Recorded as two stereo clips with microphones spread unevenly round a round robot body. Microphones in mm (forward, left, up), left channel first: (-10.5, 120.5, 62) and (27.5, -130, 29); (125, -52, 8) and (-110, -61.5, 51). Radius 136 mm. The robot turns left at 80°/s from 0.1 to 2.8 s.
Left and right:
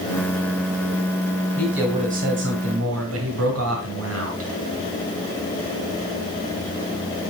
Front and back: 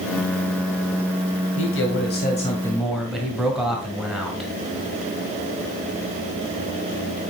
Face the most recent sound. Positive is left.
turn(degrees=-85)